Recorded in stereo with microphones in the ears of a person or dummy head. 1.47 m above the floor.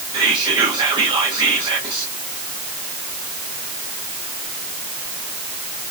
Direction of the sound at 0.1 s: 30° right (ahead or behind).